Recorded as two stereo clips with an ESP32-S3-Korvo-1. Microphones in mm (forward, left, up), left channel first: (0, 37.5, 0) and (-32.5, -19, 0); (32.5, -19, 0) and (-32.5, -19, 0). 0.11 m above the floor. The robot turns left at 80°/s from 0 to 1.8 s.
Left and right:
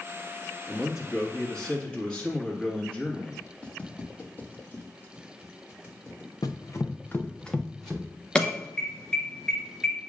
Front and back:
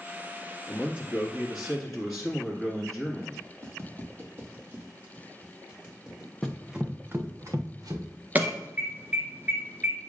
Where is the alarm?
130° left, 1.1 m.